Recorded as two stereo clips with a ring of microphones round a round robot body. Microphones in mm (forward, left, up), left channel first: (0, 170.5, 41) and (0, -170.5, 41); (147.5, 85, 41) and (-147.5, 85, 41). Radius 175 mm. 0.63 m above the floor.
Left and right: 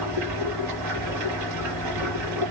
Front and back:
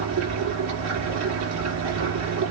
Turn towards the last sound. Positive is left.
turn(degrees=-135)